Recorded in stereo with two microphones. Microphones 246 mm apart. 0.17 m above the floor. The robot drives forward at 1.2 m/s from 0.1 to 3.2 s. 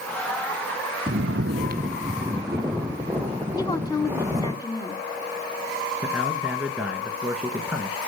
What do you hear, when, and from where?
1.1 s snoring: 45° right (ahead or behind), 0.6 m; by 4.5 s 10° right (ahead or behind), 2.5 m
3.5 s a woman speaking: 15° left (ahead or behind), 1.2 m
6.0 s a man speaking: 5° right (ahead or behind), 1.7 m